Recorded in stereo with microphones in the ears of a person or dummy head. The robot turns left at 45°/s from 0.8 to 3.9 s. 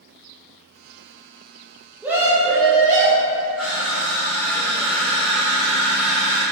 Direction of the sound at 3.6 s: 5° left (ahead or behind).